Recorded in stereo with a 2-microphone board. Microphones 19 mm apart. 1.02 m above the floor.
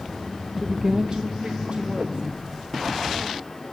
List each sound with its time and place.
0.6 s a woman speaking: 5° right (ahead or behind), 0.6 m; by 3.6 s 85° right, 3 m